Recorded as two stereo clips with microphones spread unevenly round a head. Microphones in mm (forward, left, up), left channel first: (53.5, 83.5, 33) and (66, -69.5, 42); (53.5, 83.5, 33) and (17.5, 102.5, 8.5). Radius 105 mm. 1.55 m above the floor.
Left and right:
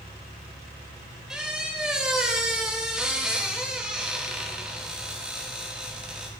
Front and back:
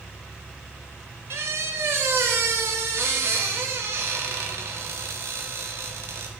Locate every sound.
1.3 s a squeak: 165° right, 0.6 m